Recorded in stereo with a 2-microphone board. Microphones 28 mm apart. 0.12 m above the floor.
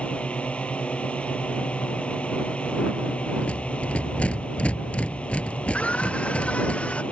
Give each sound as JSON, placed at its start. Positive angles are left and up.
{"t": 0.0, "sound": "a drone", "side_deg": 50}
{"t": 3.4, "sound": "a rattle", "side_deg": 55}
{"t": 5.7, "sound": "a scream", "side_deg": 50}